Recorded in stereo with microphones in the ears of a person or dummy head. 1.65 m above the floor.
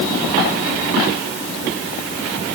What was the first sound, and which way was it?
Only background noise.